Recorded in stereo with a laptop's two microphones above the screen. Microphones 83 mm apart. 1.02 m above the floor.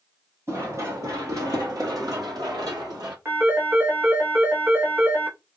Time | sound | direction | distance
0.5 | running footsteps | 40° right (ahead or behind) | 2.0 m
3.2 | a phone ringing | 30° right (ahead or behind) | 1.1 m